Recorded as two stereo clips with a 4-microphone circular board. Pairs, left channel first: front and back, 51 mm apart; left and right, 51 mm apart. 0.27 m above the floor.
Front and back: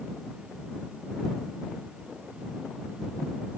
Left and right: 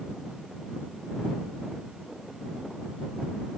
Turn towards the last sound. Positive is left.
No sound to turn to.